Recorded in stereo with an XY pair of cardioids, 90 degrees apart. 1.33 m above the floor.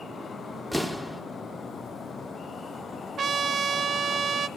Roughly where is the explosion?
Ahead.